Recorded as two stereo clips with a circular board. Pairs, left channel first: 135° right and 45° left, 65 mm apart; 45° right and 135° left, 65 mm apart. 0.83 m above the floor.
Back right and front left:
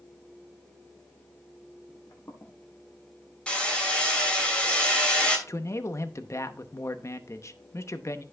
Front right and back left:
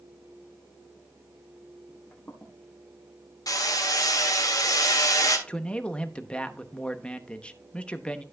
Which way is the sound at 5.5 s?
115° right.